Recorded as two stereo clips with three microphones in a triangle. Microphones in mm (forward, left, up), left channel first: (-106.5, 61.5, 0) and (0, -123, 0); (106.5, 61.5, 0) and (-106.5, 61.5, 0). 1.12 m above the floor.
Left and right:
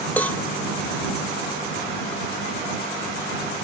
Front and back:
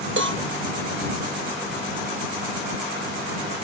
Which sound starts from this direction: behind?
A cowbell, at 0.2 s.